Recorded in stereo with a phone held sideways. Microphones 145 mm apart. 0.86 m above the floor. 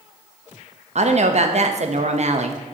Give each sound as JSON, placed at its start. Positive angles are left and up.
{"t": 0.9, "sound": "a woman speaking", "side_deg": -50, "distance_m": 0.6}